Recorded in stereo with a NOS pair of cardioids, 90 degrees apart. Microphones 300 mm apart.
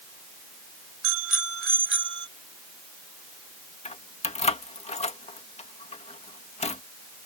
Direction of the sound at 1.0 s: 50° right.